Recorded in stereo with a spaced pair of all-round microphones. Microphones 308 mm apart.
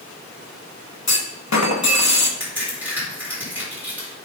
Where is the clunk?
70° left (ahead or behind), 1.2 m.